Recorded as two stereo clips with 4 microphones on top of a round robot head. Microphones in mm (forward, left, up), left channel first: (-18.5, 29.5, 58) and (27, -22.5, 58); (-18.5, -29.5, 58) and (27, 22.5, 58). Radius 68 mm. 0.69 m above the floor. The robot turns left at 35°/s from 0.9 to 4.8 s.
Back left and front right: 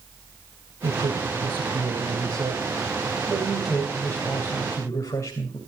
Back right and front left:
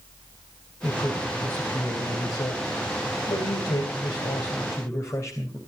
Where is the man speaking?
45° right, 3.5 m; by 5.6 s straight behind, 3.5 m.